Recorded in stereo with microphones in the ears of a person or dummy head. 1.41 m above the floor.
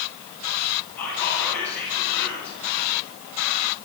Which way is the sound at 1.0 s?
10° left (ahead or behind).